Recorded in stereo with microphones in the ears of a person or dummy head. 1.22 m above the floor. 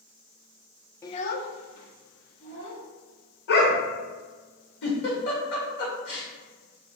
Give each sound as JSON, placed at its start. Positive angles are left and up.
{"t": 1.0, "sound": "a child speaking", "side_deg": 20, "distance_m": 0.6}
{"t": 3.5, "sound": "a dog barking", "side_deg": 60, "distance_m": 1.5}
{"t": 4.8, "sound": "a giggle", "side_deg": 70, "distance_m": 2.0}